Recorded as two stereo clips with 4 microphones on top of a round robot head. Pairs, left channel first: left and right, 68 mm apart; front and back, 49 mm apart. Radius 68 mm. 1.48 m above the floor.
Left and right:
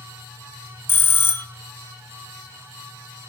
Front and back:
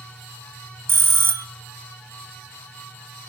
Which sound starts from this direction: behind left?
A bell, at 0.9 s.